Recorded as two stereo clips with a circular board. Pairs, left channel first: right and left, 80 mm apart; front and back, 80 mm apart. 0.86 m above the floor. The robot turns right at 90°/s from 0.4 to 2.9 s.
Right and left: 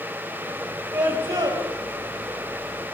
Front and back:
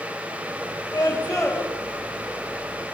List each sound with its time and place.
0.9 s a scream: 40° left, 6 m; by 1.6 s 105° left, 6 m